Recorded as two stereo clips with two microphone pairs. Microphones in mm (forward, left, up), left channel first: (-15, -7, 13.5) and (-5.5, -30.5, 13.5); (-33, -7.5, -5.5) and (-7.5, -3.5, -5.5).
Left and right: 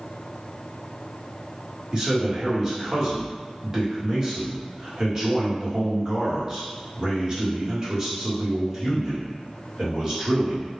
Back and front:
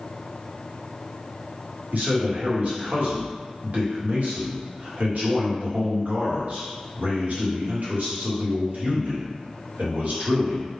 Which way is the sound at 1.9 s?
10° right.